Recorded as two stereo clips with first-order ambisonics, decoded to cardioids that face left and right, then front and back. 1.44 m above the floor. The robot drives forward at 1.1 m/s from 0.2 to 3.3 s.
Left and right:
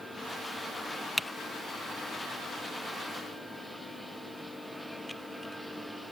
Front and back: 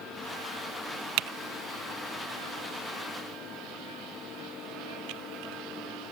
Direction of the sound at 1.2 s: 175° left.